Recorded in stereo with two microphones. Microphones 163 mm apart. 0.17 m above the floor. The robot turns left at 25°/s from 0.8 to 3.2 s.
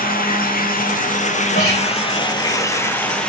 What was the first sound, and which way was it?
Running water, 65° left.